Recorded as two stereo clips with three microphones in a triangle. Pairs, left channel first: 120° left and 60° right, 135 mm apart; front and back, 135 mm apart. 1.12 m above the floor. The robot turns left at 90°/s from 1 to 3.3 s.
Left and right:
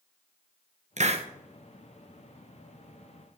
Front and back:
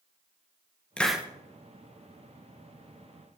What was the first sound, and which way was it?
A hiss, 80° right.